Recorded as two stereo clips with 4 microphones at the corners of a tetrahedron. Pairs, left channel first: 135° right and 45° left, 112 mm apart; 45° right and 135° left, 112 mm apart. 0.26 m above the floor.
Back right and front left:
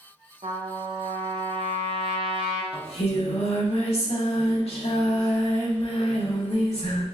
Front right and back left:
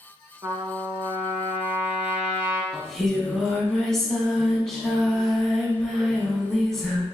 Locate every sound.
0.4 s a trumpet: 70° left, 0.5 m
2.7 s singing: 130° right, 0.5 m